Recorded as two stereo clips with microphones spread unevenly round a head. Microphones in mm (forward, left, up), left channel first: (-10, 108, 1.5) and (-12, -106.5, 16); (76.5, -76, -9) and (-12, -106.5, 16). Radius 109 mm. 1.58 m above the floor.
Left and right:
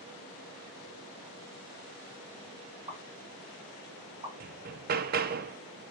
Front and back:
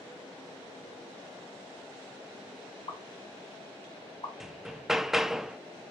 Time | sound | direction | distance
2.9 | a pop | 25° right | 3.5 m
4.4 | hammering | 90° right | 0.6 m